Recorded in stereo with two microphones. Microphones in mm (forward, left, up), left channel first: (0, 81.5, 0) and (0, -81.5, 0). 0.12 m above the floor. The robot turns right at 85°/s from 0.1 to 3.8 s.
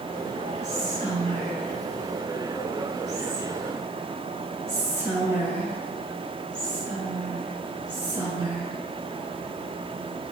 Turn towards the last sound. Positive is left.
turn(degrees=-15)  # may be behind; listen again after turning